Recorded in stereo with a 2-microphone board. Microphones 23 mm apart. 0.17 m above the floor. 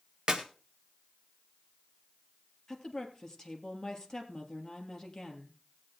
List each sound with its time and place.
0.3 s a clap: 40° right (ahead or behind), 1.6 m
2.7 s a woman speaking: 20° left (ahead or behind), 3 m